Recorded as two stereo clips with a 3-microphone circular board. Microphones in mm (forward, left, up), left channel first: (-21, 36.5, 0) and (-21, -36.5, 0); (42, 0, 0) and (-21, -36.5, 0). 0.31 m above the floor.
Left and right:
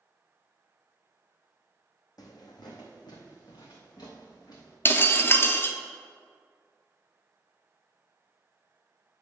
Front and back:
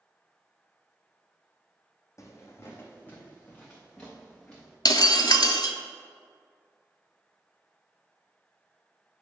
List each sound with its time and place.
2.2 s footsteps: 70° left, 1.0 m; by 4.8 s 110° left, 2 m
4.8 s breaking glass: 35° left, 0.6 m